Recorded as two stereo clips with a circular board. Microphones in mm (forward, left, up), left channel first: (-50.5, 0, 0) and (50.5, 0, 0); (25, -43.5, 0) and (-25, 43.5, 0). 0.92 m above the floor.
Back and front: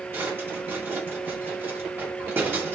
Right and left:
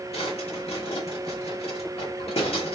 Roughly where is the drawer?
Right.